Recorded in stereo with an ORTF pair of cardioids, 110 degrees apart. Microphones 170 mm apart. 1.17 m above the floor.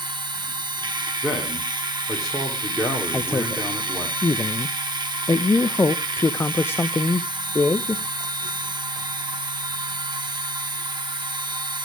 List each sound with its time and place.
0.0 s a machine running: 25° right, 3 m
1.2 s a man speaking: straight ahead, 2.5 m
3.1 s a man speaking: 15° left, 0.7 m